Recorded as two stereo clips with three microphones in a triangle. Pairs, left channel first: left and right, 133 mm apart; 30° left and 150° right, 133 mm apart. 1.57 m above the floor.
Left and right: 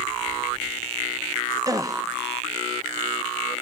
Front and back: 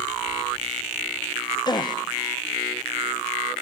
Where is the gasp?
30° right, 0.9 m.